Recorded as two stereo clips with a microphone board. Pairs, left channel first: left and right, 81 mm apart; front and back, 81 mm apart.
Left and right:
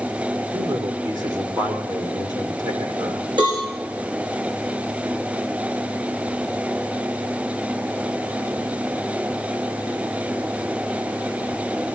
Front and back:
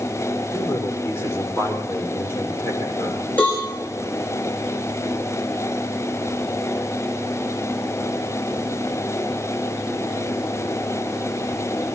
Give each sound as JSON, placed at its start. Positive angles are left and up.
{"t": 0.5, "sound": "a man speaking", "azimuth_deg": -60, "distance_m": 6.0}
{"t": 3.4, "sound": "a cowbell", "azimuth_deg": -70, "distance_m": 8.5}